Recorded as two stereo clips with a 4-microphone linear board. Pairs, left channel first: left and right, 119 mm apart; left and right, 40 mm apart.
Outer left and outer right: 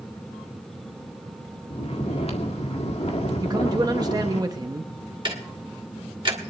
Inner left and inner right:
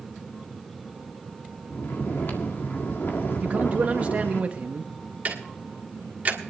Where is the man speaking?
35° right (ahead or behind), 0.8 m.